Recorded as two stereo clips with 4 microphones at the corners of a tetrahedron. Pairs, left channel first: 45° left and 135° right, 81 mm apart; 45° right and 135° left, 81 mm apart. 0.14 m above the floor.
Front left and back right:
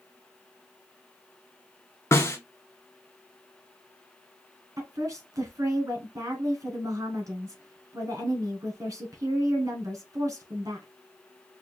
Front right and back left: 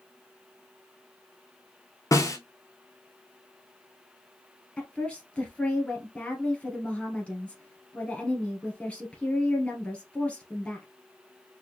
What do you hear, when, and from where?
2.1 s a snare drum: 10° right, 0.9 m
4.8 s a woman speaking: 115° right, 1.6 m